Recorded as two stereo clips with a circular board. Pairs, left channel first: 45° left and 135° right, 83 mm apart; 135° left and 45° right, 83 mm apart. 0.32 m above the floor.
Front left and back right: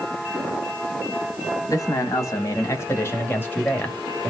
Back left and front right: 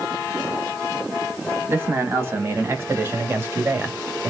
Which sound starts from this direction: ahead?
A man speaking, at 1.7 s.